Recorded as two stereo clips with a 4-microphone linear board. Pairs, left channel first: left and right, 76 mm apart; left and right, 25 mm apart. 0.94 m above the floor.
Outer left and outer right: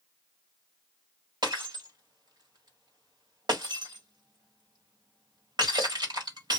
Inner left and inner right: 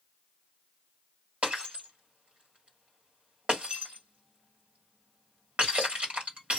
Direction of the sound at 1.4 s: 70° right (ahead or behind).